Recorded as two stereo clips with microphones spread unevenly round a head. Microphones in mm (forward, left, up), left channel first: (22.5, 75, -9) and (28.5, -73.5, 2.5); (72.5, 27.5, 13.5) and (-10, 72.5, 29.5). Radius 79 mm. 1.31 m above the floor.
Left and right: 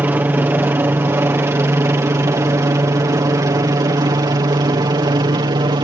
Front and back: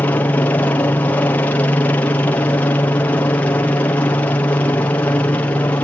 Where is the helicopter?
25° right; by 5.8 s 65° right.